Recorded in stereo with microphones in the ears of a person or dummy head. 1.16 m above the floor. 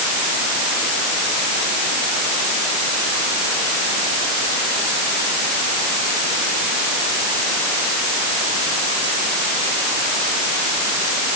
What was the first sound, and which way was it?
Only background noise.